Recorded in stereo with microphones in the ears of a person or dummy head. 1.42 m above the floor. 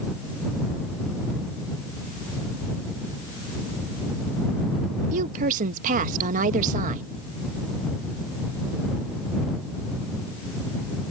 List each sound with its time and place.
5.1 s a woman speaking: 45° right (ahead or behind)